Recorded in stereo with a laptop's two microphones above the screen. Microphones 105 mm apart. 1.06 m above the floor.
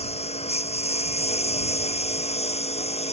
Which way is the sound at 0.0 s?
85° left.